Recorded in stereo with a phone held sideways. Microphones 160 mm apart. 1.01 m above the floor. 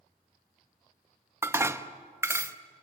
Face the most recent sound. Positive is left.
turn(degrees=-15)  # may be behind; listen again after turning